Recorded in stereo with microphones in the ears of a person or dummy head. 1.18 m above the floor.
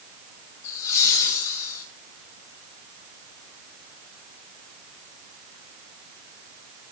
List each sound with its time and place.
0.6 s laughter: 80° left, 3.5 m